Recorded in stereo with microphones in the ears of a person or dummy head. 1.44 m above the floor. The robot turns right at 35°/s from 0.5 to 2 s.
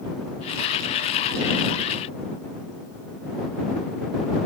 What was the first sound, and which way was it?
Only background noise.